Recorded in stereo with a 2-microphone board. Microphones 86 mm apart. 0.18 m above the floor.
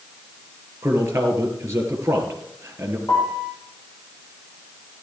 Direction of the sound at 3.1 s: 35° left (ahead or behind).